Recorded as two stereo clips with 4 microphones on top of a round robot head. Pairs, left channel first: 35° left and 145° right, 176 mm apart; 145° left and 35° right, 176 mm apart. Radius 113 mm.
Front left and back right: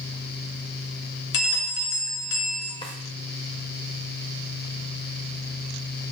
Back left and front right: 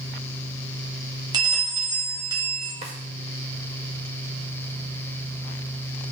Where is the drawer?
10° right, 0.7 m.